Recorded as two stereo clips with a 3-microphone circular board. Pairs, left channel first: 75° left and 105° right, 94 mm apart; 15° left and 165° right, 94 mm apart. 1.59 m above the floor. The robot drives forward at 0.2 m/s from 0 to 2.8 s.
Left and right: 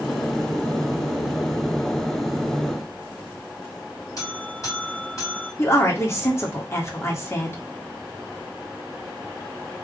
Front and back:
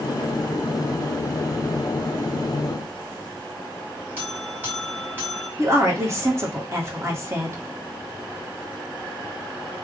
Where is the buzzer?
125° left, 2.5 m.